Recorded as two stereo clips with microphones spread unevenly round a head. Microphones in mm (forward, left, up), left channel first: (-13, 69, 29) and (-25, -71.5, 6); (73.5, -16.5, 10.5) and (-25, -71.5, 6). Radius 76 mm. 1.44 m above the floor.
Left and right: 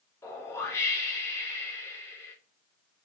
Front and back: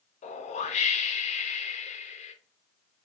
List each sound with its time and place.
0.2 s a whoosh: 10° left, 0.5 m